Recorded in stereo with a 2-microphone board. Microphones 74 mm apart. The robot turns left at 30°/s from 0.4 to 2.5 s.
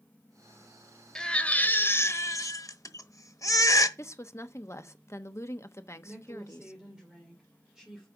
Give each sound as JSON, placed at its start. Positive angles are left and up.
{"t": 1.1, "sound": "a baby crying", "azimuth_deg": 170, "distance_m": 1.1}
{"t": 4.0, "sound": "a woman speaking", "side_deg": 40, "distance_m": 1.0}
{"t": 6.0, "sound": "a woman speaking", "side_deg": -10, "distance_m": 2.5}